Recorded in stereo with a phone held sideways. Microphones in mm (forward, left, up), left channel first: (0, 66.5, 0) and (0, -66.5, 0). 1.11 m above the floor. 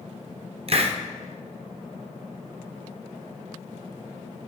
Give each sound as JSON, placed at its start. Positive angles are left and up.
{"t": 0.7, "sound": "a hiss", "side_deg": -50, "distance_m": 0.7}